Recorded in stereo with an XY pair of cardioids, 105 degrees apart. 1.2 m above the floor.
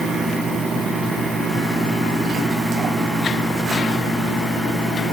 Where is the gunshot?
No gunshot in this recording.